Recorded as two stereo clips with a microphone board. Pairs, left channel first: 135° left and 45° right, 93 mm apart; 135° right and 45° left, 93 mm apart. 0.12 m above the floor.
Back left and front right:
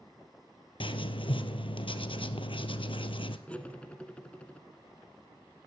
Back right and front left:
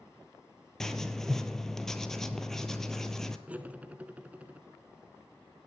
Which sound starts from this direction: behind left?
Writing, at 0.8 s.